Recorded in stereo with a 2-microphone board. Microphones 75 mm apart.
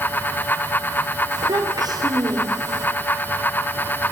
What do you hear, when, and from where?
1.3 s a child speaking: 65° right (ahead or behind), 4.5 m